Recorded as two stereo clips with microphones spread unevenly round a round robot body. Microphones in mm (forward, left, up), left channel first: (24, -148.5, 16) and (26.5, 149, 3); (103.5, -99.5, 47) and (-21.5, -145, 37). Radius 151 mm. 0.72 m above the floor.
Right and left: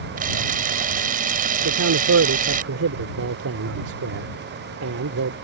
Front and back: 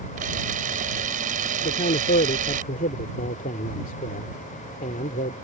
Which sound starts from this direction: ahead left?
A man speaking, at 1.6 s.